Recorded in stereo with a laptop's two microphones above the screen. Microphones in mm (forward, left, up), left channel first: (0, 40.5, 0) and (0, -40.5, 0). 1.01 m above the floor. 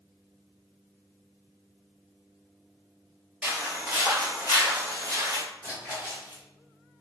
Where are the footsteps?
10° right (ahead or behind), 1.1 m; by 5.4 s 50° right (ahead or behind), 1.7 m.